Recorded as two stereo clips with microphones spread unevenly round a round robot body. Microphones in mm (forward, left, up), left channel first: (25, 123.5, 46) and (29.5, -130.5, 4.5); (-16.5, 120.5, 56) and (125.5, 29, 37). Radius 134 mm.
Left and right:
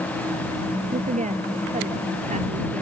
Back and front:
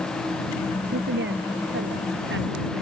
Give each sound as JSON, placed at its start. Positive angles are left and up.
{"t": 0.9, "sound": "a woman speaking", "azimuth_deg": -25}